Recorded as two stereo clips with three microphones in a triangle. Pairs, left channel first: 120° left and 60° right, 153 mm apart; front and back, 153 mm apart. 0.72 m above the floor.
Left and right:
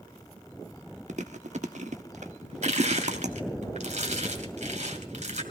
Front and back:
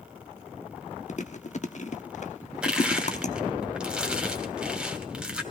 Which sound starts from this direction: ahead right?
Chewing, at 1.1 s.